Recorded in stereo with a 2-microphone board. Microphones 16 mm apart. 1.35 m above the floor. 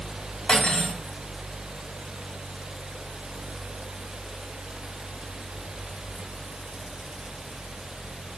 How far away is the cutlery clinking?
About 5.5 m.